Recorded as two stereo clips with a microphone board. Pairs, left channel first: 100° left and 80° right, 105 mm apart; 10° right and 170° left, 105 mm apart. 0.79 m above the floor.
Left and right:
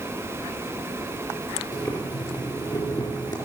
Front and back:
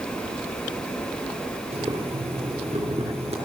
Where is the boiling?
155° left, 3.5 m.